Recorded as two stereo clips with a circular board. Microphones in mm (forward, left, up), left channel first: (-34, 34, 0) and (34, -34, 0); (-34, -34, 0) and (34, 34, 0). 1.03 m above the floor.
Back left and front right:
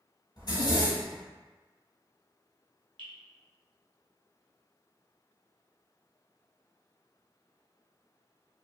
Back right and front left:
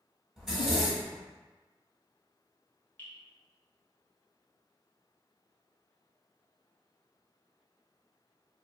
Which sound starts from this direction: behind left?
A zipper, at 0.4 s.